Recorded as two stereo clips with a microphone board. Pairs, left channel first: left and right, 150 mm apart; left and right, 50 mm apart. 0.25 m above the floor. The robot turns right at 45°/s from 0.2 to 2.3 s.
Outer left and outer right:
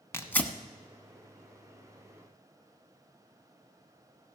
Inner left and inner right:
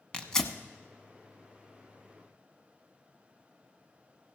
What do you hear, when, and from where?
0.1 s tearing paper: 20° left (ahead or behind), 0.9 m; by 0.5 s 5° left (ahead or behind), 0.9 m